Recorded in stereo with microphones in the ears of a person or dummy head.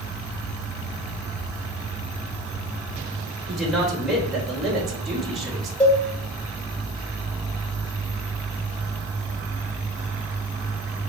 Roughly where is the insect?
Centre.